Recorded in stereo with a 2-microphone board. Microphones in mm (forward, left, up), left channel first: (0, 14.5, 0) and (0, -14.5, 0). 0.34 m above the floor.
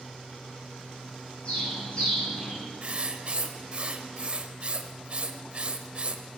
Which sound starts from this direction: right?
Writing, at 2.8 s.